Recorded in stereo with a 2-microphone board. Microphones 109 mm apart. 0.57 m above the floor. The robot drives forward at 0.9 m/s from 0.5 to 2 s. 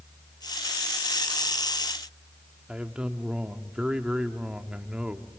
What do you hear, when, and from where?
2.7 s a man speaking: 10° right (ahead or behind), 1.1 m